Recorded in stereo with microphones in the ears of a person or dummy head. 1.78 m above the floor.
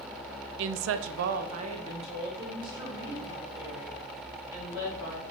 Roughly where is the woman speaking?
Right.